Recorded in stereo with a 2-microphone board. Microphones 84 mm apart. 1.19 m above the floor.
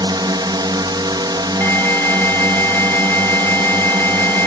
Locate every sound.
0.0 s a drone: 60° right (ahead or behind)
1.6 s an alarm: 25° left (ahead or behind)